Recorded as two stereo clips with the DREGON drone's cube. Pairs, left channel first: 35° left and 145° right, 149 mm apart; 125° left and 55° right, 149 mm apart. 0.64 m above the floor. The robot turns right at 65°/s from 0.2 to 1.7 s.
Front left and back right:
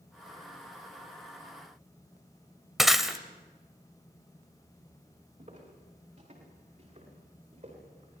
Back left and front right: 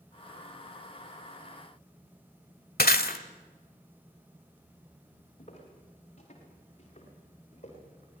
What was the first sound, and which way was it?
Breaking glass, 125° left.